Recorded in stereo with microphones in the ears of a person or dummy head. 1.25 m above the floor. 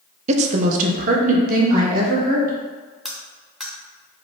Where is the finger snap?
I don't hear a finger snap.